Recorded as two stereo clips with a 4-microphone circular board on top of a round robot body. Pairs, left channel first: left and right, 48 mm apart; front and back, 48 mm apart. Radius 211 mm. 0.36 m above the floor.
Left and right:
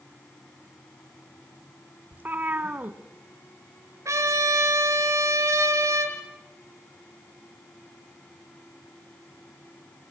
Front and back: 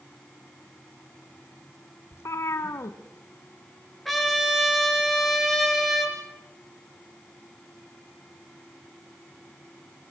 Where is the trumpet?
90° right, 5 m.